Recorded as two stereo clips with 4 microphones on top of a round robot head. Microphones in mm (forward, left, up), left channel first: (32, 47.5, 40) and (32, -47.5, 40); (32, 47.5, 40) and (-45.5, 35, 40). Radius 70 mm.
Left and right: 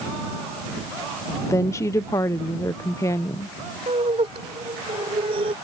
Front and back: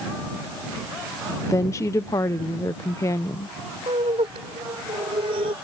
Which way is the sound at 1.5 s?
45° left.